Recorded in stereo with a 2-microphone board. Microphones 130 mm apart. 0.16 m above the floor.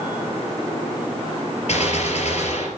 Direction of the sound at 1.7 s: 60° left (ahead or behind).